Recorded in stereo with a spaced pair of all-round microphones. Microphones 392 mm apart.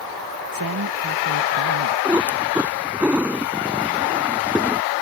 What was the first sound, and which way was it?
A man speaking, 60° right (ahead or behind).